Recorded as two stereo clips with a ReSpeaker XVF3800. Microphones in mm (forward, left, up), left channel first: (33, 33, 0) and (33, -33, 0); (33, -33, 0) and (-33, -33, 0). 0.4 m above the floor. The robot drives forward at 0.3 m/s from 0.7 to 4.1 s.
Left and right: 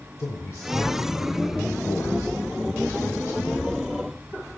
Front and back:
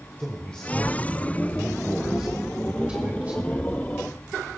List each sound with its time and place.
0.2 s a man speaking: 70° left, 1.2 m; by 3.8 s 125° left, 1.3 m